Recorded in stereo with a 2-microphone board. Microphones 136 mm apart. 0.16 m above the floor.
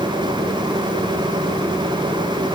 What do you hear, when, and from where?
Only background noise.